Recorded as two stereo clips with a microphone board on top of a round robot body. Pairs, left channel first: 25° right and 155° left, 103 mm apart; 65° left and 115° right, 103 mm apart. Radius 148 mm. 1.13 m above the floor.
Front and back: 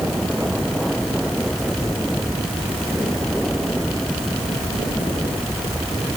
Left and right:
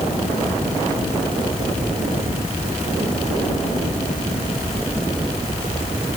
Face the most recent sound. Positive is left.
No sound to turn to.